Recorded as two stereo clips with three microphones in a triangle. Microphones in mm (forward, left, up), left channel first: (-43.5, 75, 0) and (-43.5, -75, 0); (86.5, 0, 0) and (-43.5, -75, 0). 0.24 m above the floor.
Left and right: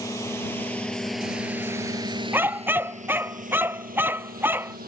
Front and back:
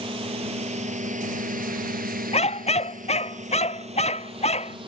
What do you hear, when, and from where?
0.0 s a drone: 160° left; by 4.9 s 95° right
2.3 s a dog barking: 15° right